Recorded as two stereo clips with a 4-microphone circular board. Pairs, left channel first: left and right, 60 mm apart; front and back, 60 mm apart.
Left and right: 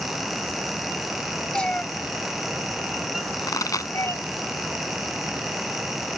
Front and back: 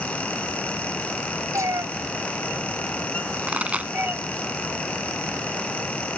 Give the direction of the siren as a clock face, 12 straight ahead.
No siren in this recording.